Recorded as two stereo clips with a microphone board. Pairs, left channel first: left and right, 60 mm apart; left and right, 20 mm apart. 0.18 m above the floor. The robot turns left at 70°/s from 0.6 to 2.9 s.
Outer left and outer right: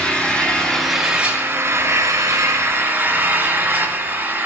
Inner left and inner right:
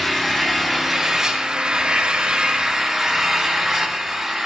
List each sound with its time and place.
0.0 s an engine running: 20° left, 3 m; by 4.5 s 140° right, 3 m